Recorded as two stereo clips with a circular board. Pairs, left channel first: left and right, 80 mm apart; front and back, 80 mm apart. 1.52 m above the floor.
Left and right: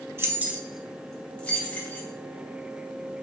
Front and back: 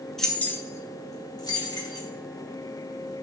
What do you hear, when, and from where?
0.2 s keys jangling: 80° right, 0.6 m; by 2.1 s 25° left, 1.3 m